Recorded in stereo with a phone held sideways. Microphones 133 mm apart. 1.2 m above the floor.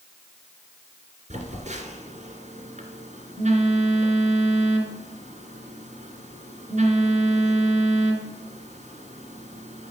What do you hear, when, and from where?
1.3 s a phone buzzing: 65° right (ahead or behind), 2.5 m